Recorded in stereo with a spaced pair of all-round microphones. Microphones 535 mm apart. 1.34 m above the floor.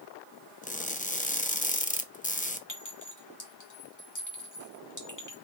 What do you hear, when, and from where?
0.6 s crushing: 15° left (ahead or behind), 0.6 m
2.7 s a clink: 35° left (ahead or behind), 1.6 m